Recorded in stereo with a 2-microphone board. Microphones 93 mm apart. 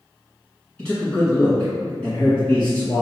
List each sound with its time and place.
0.8 s a man speaking: 10° left (ahead or behind), 1.8 m